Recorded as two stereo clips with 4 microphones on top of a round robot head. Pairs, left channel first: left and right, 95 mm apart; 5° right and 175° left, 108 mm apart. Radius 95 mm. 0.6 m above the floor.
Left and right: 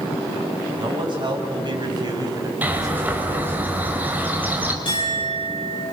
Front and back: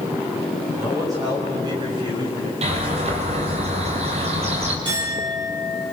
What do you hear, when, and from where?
0.8 s a man speaking: 120° right, 6 m; by 3.6 s 155° right, 3.5 m
2.6 s a bird: 160° right, 3.5 m
4.8 s a clink: 130° left, 9.5 m